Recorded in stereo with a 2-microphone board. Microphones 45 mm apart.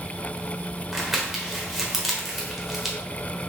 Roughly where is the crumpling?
Centre.